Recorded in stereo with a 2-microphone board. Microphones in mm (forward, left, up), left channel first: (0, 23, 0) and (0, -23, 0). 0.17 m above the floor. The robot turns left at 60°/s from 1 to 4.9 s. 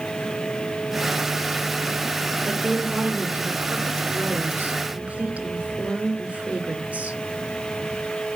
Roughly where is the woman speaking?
Ahead.